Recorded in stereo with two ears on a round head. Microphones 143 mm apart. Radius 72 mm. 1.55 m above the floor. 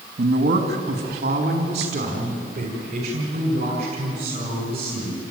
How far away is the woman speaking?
About 2.0 m.